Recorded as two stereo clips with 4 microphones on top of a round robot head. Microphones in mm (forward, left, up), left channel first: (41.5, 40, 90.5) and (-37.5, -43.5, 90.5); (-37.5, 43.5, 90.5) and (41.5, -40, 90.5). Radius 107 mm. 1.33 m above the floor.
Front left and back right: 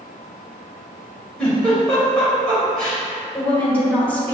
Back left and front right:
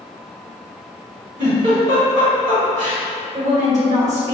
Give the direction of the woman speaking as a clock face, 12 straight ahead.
1 o'clock.